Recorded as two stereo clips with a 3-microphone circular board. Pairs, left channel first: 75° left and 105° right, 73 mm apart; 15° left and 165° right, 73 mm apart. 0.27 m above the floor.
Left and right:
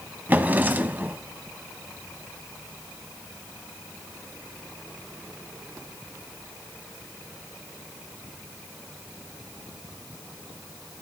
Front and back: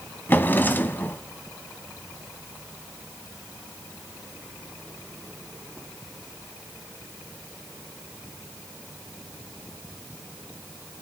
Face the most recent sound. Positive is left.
turn(degrees=-40)